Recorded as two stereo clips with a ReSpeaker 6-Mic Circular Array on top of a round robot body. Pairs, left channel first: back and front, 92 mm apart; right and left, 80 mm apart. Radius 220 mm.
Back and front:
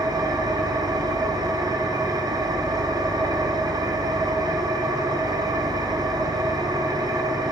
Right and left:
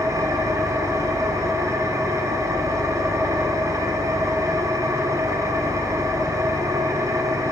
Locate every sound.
0.0 s an engine running: 45° left, 1.1 m